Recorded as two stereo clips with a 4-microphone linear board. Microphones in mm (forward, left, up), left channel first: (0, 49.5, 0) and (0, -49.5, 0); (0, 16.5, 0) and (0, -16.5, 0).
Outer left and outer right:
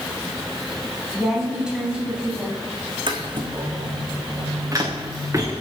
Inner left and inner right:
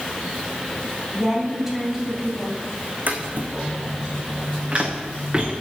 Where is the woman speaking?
5° right (ahead or behind), 3.5 m; by 2.6 s 10° right (ahead or behind), 2.5 m.